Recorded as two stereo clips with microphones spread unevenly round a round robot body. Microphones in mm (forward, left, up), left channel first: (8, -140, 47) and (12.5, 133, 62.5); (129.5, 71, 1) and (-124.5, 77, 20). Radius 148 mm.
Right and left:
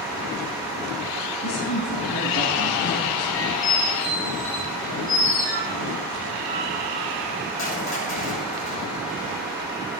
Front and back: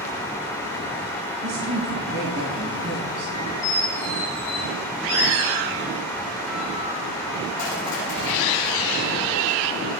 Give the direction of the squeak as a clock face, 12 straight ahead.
1 o'clock.